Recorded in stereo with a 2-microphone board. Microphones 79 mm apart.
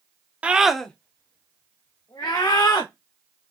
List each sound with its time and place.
0.4 s a scream: 15° right (ahead or behind), 0.6 m; by 2.9 s 70° left (ahead or behind), 1.3 m